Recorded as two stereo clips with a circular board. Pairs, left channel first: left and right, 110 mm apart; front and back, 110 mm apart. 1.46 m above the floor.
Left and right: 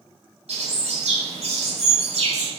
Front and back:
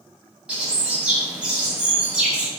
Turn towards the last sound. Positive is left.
turn(degrees=-100)